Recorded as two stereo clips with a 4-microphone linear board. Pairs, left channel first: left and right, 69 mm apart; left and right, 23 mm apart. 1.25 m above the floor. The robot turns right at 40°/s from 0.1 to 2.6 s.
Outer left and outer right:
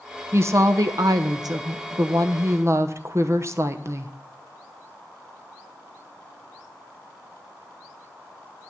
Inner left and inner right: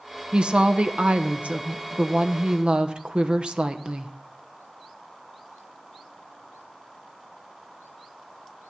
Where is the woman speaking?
140° right, 0.8 m; by 4.1 s 50° right, 0.8 m.